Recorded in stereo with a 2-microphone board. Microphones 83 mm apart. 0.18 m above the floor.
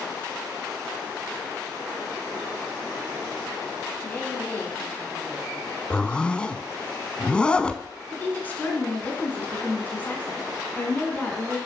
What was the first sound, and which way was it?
A woman speaking, 20° left (ahead or behind).